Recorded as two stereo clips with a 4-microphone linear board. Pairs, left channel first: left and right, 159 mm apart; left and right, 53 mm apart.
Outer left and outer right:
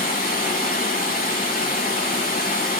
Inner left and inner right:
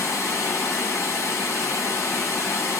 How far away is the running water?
About 3.5 m.